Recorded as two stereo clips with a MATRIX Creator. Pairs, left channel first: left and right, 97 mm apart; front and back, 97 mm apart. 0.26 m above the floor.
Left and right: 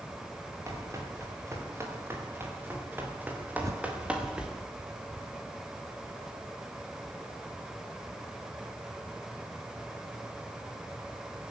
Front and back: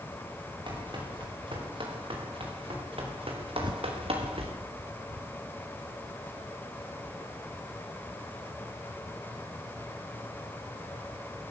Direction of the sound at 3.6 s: 145° right.